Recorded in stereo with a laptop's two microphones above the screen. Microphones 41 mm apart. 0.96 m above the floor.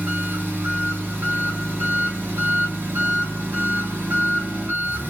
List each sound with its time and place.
0.0 s an engine running: 50° right (ahead or behind), 2 m